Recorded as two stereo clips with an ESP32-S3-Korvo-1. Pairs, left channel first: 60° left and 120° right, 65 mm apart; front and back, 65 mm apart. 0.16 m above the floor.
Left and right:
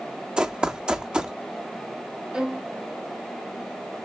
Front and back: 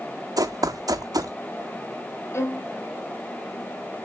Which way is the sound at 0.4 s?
165° left.